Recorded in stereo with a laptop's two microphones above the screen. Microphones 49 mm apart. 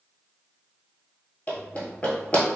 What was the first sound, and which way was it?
Running footsteps, 30° left (ahead or behind).